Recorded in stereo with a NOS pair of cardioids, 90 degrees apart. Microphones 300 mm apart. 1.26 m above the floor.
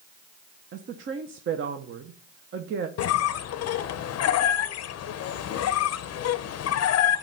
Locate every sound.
0.7 s a woman speaking: 45° right, 0.8 m
3.0 s a squeak: 55° left, 0.5 m